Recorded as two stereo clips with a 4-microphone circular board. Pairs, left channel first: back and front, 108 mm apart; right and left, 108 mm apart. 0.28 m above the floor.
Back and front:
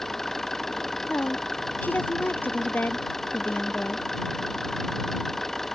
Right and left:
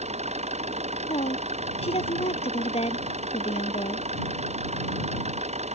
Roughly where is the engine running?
Left.